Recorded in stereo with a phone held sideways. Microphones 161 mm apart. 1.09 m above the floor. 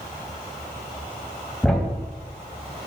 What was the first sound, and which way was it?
A thud, 5° left (ahead or behind).